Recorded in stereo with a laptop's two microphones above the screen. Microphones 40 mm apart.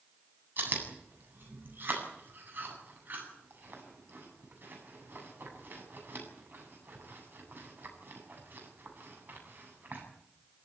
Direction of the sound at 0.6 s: 55° right (ahead or behind).